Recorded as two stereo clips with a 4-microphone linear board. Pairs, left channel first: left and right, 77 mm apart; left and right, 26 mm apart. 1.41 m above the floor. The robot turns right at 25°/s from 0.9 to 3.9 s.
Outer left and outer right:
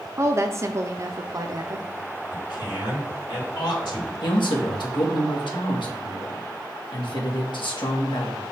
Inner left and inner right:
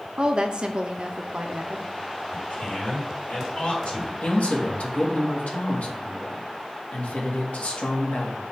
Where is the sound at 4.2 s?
85° left, 1.6 m.